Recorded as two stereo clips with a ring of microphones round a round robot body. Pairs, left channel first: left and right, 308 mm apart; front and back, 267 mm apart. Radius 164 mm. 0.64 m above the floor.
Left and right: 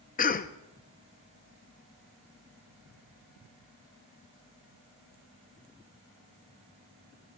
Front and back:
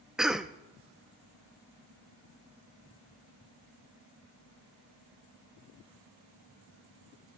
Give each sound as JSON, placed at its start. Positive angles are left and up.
{"t": 0.2, "sound": "a cough", "azimuth_deg": 95, "distance_m": 0.6}